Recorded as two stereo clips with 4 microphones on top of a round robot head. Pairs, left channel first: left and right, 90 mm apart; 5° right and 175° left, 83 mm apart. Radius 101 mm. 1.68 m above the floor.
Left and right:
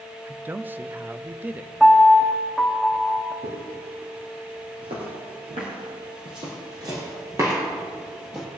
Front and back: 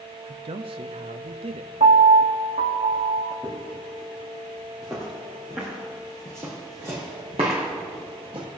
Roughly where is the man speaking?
Behind.